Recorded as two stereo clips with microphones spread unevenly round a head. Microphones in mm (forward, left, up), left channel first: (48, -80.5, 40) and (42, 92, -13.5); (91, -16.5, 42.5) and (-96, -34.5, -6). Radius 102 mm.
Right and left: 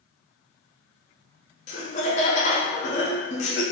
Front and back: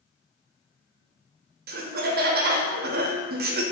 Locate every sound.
1.7 s laughter: 150° right, 0.5 m